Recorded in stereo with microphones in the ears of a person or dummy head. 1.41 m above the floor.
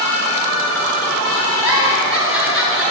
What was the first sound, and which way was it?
A giggle, 5° right (ahead or behind).